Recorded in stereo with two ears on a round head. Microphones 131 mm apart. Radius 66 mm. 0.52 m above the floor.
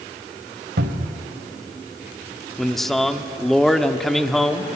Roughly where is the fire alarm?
No fire alarm in this recording.